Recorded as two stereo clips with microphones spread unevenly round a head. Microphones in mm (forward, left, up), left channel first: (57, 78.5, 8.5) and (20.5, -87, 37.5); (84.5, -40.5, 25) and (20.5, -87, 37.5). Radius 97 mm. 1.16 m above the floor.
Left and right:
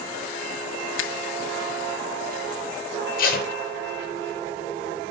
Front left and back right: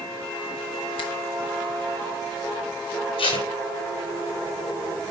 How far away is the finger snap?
About 0.8 m.